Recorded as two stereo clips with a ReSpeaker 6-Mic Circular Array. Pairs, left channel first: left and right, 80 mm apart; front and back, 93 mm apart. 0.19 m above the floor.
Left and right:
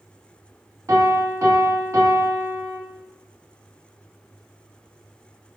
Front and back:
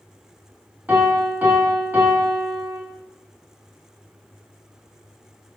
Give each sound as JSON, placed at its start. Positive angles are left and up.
{"t": 0.9, "sound": "a piano", "azimuth_deg": -115, "distance_m": 0.7}